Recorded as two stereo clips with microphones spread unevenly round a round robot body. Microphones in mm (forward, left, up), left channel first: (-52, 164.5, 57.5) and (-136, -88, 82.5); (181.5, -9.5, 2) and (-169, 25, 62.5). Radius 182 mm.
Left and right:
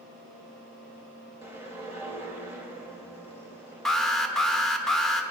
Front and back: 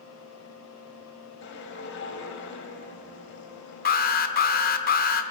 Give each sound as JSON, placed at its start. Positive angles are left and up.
{"t": 1.4, "sound": "a whoosh", "azimuth_deg": -25, "distance_m": 1.5}
{"t": 3.9, "sound": "an alarm", "azimuth_deg": -10, "distance_m": 0.8}